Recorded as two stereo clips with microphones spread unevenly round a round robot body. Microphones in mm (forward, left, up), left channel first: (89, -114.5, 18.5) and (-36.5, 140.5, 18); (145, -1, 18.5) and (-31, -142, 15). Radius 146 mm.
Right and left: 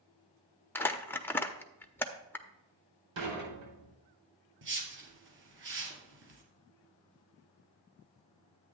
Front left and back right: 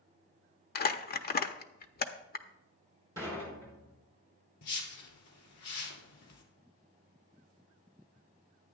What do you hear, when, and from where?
0.8 s crumpling: 15° left, 0.8 m
3.2 s dishes clattering: 140° left, 4.5 m
4.6 s a whoosh: 65° left, 2.5 m